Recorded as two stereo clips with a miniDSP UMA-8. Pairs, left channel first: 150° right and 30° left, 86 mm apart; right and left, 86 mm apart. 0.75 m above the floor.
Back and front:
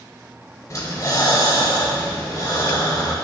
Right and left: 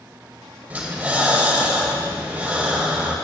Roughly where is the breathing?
Behind.